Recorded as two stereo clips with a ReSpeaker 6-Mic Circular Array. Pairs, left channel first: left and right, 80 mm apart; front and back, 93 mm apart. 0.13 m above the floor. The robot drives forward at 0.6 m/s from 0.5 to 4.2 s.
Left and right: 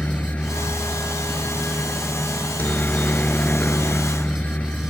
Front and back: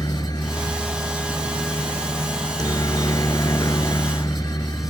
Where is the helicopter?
25° left.